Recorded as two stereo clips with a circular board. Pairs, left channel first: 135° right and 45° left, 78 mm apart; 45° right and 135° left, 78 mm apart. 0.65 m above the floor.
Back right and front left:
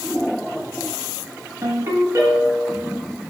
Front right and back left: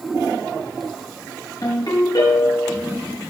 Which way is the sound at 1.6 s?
10° right.